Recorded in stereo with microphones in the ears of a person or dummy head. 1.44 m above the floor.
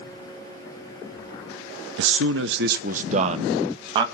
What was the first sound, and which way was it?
A man speaking, 70° right (ahead or behind).